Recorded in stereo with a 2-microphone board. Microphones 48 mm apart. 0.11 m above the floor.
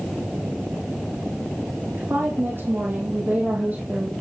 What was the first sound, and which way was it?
A woman speaking, 60° right (ahead or behind).